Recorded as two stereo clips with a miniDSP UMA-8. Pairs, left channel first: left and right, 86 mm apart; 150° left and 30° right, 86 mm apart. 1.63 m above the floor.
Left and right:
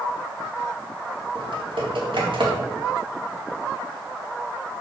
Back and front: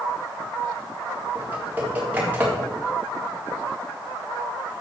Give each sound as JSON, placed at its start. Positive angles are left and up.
{"t": 1.4, "sound": "typing on a keyboard", "azimuth_deg": -100, "distance_m": 3.5}